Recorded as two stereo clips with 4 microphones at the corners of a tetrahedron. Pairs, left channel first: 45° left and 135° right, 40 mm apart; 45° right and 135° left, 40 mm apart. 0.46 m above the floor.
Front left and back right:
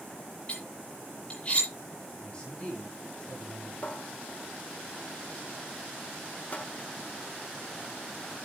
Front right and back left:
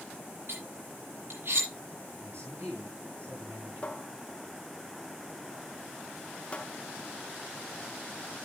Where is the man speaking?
110° left, 8 m.